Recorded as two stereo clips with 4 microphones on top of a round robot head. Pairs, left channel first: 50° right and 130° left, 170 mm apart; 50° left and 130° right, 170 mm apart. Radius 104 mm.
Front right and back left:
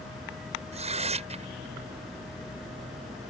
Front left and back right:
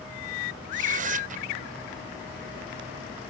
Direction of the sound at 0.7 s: 175° right.